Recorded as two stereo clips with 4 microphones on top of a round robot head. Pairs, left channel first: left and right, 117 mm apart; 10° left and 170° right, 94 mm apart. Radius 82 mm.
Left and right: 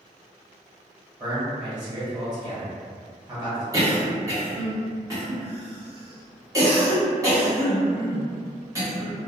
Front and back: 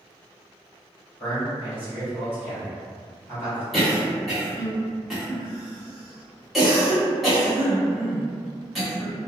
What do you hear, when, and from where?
1.2 s a man speaking: 50° right, 1.6 m
3.7 s a cough: 80° right, 1.4 m